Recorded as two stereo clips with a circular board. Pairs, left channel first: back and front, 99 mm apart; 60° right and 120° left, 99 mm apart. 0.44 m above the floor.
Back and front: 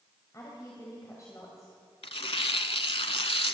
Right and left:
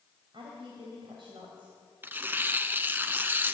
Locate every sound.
0.3 s a woman speaking: 130° left, 2.5 m
2.0 s tearing paper: 170° right, 0.7 m